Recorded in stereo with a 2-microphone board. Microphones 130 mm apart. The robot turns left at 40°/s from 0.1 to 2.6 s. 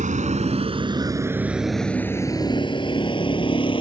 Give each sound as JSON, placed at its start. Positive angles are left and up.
{"t": 0.0, "sound": "a vehicle", "side_deg": -80}